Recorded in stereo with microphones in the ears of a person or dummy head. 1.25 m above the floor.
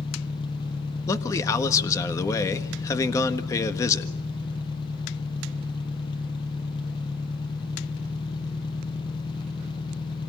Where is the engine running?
25° left (ahead or behind), 0.7 m.